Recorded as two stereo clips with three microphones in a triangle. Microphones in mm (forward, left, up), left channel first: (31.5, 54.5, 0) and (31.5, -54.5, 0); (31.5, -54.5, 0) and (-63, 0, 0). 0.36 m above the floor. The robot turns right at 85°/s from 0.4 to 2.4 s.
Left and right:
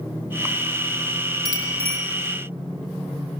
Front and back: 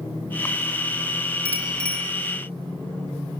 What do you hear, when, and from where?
1.4 s a bicycle bell: 145° right, 6 m; by 2.0 s 100° right, 6 m